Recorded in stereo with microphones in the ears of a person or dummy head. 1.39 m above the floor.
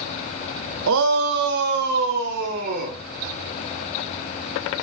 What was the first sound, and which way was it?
A shout, 70° right (ahead or behind).